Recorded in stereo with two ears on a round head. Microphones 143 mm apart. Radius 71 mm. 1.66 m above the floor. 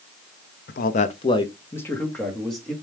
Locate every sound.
0.7 s a man speaking: 65° left (ahead or behind), 0.5 m; by 2.7 s centre (ahead or behind), 1.4 m